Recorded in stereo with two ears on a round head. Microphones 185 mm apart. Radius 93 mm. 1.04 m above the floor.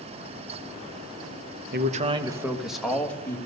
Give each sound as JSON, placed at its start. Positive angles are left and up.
{"t": 1.7, "sound": "a man speaking", "side_deg": -45, "distance_m": 0.8}